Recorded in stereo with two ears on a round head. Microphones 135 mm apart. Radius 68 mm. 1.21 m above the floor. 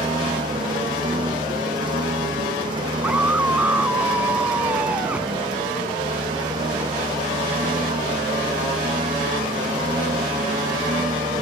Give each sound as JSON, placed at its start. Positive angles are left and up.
{"t": 0.0, "sound": "a lawn mower", "side_deg": -30}
{"t": 3.0, "sound": "a scream", "side_deg": -10}